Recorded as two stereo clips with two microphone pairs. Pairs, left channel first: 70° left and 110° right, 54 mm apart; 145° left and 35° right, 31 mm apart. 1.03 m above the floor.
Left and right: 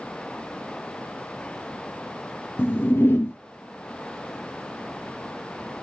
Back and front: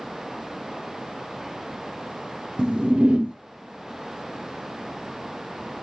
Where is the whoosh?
25° left, 0.8 m.